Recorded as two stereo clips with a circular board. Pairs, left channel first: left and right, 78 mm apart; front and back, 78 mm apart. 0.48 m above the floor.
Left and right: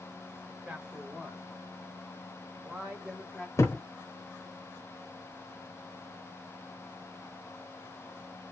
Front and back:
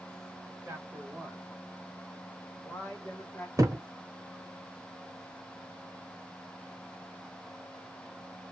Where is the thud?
135° left, 0.8 m.